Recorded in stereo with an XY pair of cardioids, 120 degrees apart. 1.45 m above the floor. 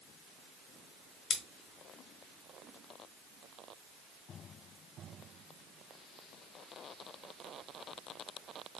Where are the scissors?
60° left, 1.0 m.